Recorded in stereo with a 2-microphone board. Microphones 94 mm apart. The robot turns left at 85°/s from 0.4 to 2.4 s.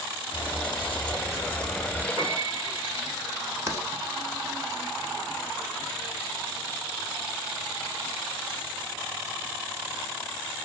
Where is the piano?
50° right (ahead or behind), 1.0 m; by 3.0 s 35° right (ahead or behind), 1.0 m.